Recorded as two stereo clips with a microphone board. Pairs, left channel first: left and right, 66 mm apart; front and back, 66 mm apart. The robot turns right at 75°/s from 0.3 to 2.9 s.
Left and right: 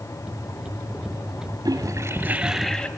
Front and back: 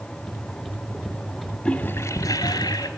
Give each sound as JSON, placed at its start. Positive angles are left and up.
{"t": 1.6, "sound": "a toilet flushing", "azimuth_deg": -70, "distance_m": 0.8}